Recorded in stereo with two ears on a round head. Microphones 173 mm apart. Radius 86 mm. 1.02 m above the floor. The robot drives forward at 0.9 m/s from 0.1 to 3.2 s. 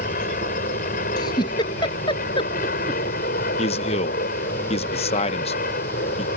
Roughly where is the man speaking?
Left.